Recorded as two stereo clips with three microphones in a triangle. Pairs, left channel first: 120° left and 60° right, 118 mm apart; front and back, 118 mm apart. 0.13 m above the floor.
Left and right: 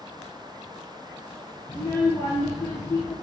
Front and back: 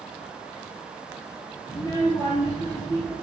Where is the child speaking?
55° left, 1.4 m.